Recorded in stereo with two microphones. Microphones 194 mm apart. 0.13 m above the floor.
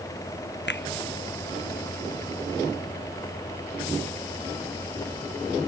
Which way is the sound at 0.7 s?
65° left (ahead or behind).